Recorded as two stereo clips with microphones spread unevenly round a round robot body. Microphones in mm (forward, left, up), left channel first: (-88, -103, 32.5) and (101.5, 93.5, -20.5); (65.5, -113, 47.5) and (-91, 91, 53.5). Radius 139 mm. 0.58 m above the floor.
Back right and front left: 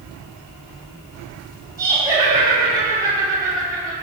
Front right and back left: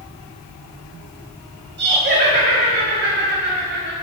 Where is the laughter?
105° left, 1.6 m.